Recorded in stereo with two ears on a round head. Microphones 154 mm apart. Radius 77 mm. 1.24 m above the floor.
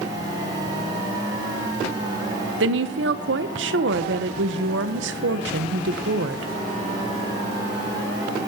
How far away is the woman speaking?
About 0.9 m.